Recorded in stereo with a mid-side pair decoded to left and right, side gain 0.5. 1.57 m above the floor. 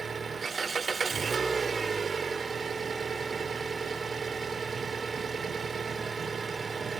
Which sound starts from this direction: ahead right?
An engine running, at 0.0 s.